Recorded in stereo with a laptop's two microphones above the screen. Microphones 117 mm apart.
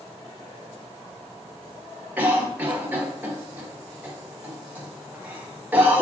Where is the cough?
15° right (ahead or behind), 1.0 m.